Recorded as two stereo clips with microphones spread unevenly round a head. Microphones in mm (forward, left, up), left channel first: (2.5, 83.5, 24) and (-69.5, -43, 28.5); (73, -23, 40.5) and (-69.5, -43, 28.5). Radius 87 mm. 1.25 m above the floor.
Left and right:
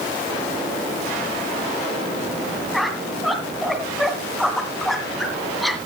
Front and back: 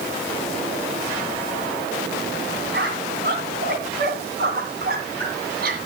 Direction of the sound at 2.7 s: 150° left.